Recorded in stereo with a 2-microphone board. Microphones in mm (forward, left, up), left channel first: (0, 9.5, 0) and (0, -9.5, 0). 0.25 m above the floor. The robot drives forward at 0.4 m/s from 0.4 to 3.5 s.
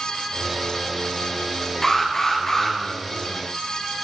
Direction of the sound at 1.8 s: 15° left (ahead or behind).